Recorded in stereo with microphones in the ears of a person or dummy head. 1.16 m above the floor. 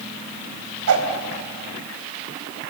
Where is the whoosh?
75° right (ahead or behind), 3.5 m.